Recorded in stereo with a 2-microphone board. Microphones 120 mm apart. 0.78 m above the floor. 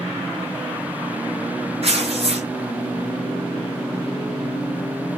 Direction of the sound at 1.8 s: 55° right (ahead or behind).